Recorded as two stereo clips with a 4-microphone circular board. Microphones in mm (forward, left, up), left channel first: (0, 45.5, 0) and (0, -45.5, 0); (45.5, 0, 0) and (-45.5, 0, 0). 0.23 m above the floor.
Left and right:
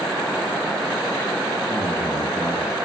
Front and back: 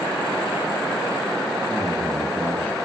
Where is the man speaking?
35° right, 1.7 m.